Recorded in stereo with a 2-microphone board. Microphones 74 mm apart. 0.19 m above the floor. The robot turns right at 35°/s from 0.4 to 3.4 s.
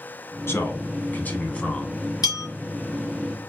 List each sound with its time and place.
0.5 s a man speaking: 105° left, 1.2 m; by 1.9 s 155° left, 1.2 m
2.2 s a bell: 65° left (ahead or behind), 2.5 m; by 2.5 s 60° left (ahead or behind), 2.5 m